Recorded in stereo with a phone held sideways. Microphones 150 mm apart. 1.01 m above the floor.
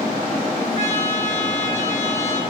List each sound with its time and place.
0.8 s a trumpet: 50° left (ahead or behind), 8 m